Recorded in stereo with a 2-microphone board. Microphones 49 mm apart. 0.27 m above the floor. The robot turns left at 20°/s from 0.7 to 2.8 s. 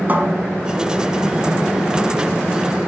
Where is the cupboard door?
35° right (ahead or behind), 0.8 m.